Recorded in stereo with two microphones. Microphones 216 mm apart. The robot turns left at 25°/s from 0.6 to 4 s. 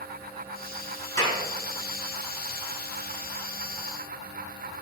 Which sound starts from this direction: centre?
A clap, at 1.2 s.